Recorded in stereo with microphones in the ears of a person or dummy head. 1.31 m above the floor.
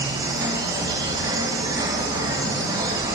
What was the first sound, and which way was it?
An insect, 20° right (ahead or behind).